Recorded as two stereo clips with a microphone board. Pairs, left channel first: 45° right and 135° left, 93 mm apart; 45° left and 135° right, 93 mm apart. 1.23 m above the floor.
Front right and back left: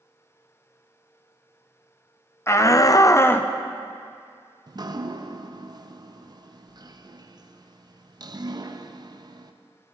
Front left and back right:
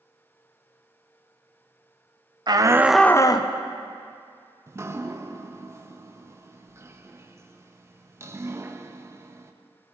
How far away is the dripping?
About 0.6 m.